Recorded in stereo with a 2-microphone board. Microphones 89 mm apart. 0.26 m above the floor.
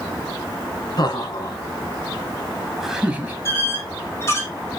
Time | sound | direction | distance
1.0 | laughter | 50° left (ahead or behind) | 2.5 m
3.5 | a squeak | 30° left (ahead or behind) | 3.5 m